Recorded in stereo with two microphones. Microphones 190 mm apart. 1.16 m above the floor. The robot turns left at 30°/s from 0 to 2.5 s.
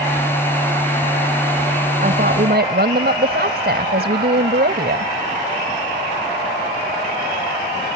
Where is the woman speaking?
45° right (ahead or behind); by 5.1 s 60° right (ahead or behind).